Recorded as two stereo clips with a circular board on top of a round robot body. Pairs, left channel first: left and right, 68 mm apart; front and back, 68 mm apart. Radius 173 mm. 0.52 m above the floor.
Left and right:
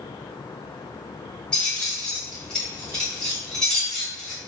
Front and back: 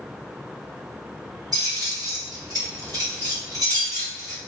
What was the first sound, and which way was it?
Keys jangling, 165° left.